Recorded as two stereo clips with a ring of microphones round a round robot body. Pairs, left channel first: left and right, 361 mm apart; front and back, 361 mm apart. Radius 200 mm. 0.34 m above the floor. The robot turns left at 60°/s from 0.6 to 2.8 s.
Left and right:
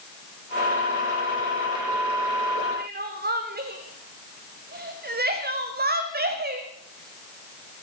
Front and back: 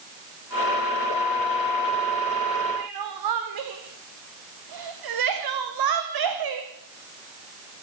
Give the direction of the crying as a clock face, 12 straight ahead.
5 o'clock.